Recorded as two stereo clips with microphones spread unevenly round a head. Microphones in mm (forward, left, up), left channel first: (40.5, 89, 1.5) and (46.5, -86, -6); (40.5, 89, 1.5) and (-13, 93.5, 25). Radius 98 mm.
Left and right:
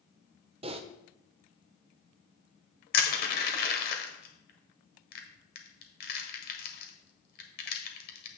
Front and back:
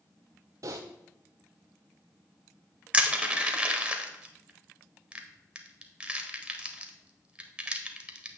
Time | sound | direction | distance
0.6 | typing on a keyboard | 135° right | 0.5 m
2.9 | crushing | 125° left | 1.4 m